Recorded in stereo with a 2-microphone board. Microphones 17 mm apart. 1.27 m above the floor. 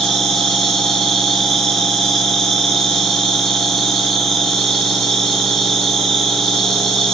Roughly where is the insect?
Left.